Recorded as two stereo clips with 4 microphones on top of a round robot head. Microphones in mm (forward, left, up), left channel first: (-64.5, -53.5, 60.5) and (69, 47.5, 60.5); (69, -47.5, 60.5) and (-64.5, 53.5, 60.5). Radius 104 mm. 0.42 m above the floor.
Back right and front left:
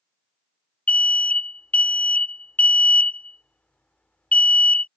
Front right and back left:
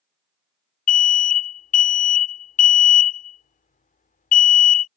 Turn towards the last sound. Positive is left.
turn(degrees=-60)